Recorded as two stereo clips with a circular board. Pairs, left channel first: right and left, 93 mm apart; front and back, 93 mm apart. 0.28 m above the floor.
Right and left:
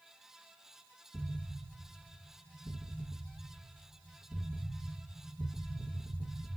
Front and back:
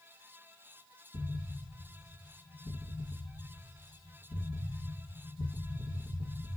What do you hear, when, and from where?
1.1 s an explosion: 20° left, 2.5 m